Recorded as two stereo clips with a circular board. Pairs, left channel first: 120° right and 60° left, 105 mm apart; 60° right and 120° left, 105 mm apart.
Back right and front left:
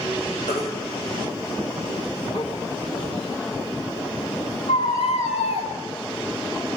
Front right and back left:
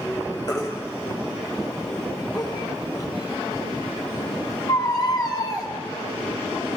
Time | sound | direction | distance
0.5 | a baby crying | 120° right | 7 m